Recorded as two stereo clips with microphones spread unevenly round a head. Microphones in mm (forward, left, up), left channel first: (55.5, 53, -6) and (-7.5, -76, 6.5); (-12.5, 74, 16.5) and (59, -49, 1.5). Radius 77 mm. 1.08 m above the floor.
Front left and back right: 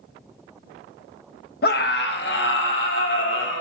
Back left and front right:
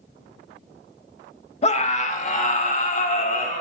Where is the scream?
75° left, 1.5 m; by 3.6 s 85° left, 4.5 m.